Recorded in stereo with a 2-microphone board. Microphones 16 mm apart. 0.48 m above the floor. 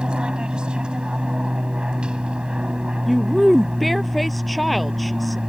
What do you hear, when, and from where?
0.0 s an aircraft: 65° right (ahead or behind)
3.1 s a woman speaking: centre (ahead or behind)